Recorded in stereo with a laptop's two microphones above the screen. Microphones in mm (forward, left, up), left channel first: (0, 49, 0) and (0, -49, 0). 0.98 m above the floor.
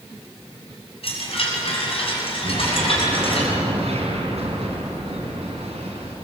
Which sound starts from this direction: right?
An explosion, at 2.4 s.